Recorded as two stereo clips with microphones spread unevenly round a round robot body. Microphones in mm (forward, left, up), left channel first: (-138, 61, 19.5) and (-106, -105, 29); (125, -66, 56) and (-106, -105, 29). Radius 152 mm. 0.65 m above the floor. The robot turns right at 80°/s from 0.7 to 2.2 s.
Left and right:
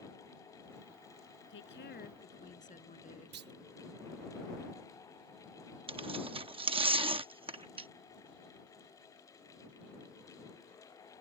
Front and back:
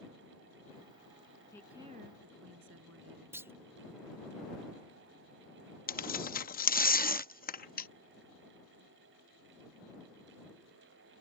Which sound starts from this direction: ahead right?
Tearing paper, at 5.9 s.